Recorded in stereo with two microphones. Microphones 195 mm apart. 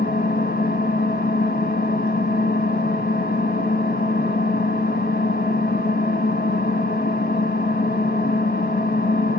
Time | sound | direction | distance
0.0 | an engine running | 50° left (ahead or behind) | 1.2 m